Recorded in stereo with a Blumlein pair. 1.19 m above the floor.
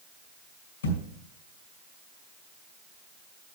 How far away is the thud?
About 2 m.